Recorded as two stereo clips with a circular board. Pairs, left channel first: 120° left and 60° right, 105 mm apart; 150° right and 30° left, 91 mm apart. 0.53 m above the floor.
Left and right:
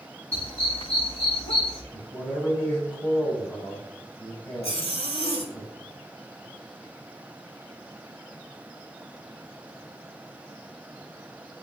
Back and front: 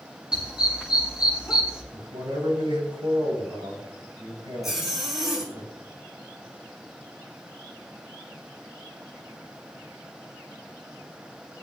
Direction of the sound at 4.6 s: 115° left.